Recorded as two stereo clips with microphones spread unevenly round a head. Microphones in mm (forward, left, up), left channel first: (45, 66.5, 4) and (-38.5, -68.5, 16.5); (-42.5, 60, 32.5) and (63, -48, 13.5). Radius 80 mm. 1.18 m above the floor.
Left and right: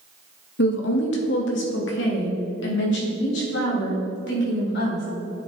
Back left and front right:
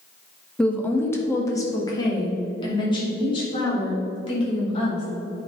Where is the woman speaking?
50° left, 1.3 m; by 5.0 s 80° left, 4.5 m.